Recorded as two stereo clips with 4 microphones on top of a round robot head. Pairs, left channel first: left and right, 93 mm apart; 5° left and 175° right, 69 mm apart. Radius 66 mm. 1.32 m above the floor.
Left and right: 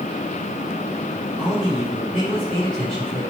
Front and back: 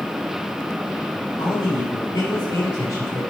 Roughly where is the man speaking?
Ahead.